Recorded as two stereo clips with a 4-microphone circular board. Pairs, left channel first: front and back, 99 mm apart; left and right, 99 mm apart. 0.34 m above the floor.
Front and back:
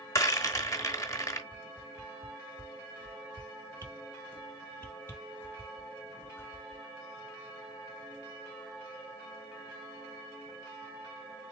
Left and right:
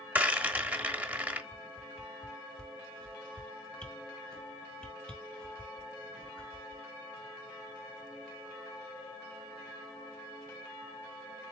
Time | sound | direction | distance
0.1 | a rattle | 30° right | 1.0 m
1.5 | a whoosh | 20° left | 1.2 m